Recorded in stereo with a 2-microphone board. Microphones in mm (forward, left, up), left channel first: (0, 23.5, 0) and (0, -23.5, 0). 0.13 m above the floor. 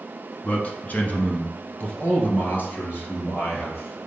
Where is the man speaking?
30° left (ahead or behind), 1.2 m; by 4.0 s 40° left (ahead or behind), 2.5 m.